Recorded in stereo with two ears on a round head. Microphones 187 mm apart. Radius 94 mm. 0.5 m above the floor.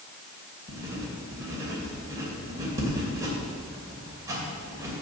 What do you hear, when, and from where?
0.7 s writing: 15° right (ahead or behind), 2.5 m